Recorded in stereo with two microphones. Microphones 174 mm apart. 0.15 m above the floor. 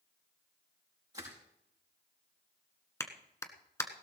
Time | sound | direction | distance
1.1 | crushing | 20° right (ahead or behind) | 6 m
3.0 | a clap | 15° left (ahead or behind) | 1.3 m